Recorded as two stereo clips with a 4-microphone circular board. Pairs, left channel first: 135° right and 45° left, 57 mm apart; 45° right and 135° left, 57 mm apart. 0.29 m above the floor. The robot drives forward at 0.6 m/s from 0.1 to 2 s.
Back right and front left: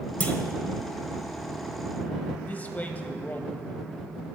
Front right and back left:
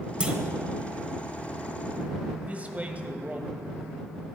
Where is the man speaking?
175° right, 1.3 m.